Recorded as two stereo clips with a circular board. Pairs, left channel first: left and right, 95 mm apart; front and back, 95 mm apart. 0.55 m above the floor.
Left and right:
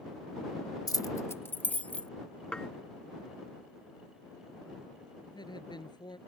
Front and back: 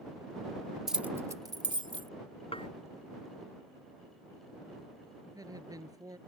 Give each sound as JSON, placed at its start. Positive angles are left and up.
{"t": 0.9, "sound": "keys jangling", "azimuth_deg": 95}
{"t": 2.5, "sound": "dishes clattering", "azimuth_deg": 10}
{"t": 5.2, "sound": "a woman speaking", "azimuth_deg": 130}